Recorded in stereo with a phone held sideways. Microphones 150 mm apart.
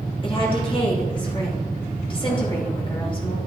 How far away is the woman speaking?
About 2.5 m.